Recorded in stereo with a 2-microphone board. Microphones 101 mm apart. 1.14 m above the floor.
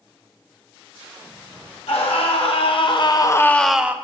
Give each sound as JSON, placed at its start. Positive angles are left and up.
{"t": 1.9, "sound": "a scream", "side_deg": 80, "distance_m": 1.8}